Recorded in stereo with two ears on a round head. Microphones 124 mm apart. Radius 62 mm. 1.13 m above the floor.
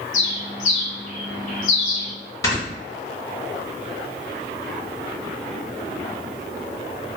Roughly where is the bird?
Left.